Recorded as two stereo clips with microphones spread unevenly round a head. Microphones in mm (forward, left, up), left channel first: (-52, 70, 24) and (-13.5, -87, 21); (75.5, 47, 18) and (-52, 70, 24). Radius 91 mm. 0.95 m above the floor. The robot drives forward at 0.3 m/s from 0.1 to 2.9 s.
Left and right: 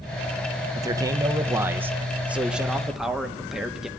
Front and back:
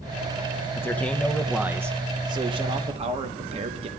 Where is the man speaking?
45° right, 0.5 m; by 3.9 s 160° right, 0.7 m.